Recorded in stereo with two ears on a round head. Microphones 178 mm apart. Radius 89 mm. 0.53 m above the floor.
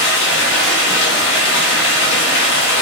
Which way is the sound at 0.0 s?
60° left (ahead or behind).